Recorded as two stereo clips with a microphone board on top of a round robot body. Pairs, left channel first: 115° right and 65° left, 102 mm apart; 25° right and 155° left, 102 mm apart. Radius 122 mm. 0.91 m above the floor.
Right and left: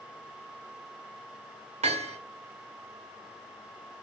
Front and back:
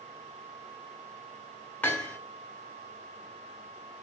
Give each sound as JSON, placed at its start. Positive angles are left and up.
{"t": 1.8, "sound": "hammering", "azimuth_deg": 50, "distance_m": 1.9}